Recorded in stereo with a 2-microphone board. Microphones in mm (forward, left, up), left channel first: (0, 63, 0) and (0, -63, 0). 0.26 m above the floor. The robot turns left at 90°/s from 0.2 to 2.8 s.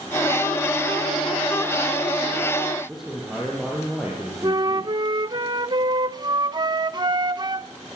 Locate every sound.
2.9 s a man speaking: 5° right (ahead or behind), 8.5 m
4.4 s a flute: 35° right (ahead or behind), 0.5 m